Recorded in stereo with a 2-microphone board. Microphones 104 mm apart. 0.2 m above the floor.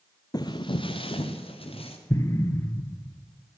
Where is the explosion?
30° left (ahead or behind), 0.9 m.